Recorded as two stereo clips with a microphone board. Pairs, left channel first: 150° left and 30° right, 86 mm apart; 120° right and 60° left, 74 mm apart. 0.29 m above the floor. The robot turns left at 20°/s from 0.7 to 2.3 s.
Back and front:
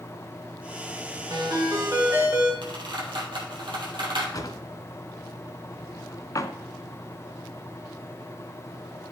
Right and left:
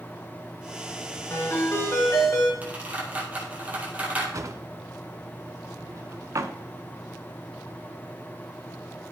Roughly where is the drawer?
Left.